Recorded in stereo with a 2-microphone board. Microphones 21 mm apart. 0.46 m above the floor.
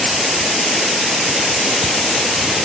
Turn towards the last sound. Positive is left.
No sound to turn to.